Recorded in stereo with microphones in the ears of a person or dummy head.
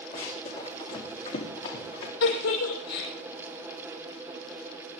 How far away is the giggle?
About 6.5 m.